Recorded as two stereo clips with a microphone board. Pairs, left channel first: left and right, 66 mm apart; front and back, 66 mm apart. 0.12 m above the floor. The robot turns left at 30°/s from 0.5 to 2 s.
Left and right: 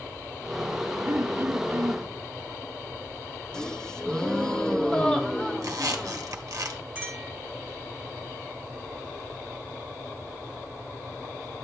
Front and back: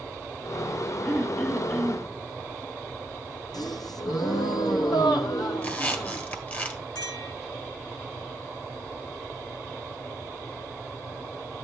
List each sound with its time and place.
1.1 s throat clearing: 65° right, 2.0 m; by 2.1 s 90° right, 2.0 m
3.5 s a gasp: 10° left, 1.0 m
5.6 s a squeak: 60° right, 1.6 m
7.0 s a clink: 15° right, 6 m